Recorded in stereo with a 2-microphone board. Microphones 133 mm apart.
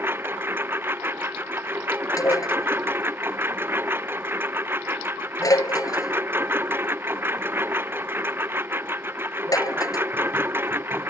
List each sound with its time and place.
0.0 s a lawn mower: 15° right (ahead or behind)
2.2 s dishes clattering: 25° left (ahead or behind)